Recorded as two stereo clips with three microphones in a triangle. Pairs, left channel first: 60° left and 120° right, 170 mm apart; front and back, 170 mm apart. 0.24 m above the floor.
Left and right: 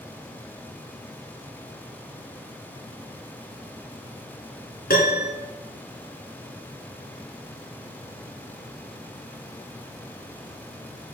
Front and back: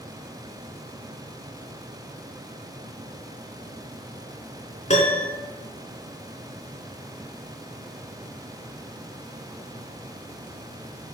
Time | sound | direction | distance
4.9 | a piano | 45° left | 3 m